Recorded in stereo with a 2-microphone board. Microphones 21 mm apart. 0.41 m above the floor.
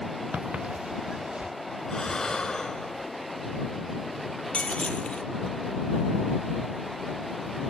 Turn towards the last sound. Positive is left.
turn(degrees=85)